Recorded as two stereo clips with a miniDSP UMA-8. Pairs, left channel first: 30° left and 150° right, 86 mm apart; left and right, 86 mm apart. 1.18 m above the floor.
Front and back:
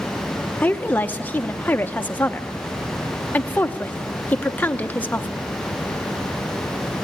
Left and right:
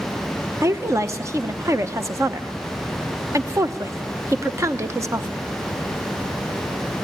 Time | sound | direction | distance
0.6 | a woman speaking | 40° right | 0.8 m